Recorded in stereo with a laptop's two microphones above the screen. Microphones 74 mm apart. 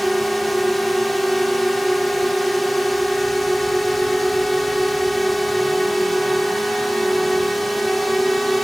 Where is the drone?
Centre (ahead or behind).